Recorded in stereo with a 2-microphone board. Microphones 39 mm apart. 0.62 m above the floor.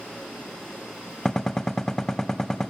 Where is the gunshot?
15° left (ahead or behind), 0.5 m.